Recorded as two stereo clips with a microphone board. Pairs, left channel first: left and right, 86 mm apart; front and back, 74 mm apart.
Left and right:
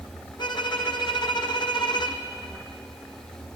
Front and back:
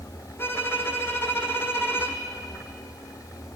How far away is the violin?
About 2 m.